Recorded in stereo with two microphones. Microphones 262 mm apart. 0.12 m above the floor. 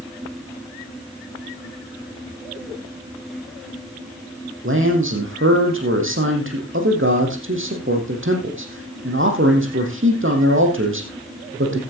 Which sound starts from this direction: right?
A man speaking, at 4.6 s.